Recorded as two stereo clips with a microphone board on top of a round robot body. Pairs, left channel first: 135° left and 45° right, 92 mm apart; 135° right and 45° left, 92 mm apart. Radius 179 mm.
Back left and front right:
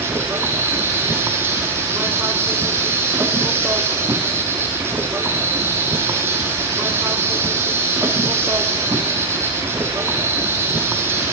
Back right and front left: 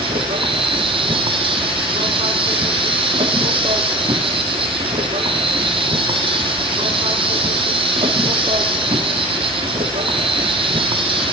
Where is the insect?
20° left, 0.7 m.